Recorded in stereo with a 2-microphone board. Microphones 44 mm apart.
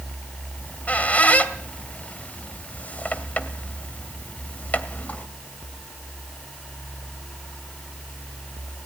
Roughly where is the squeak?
Left.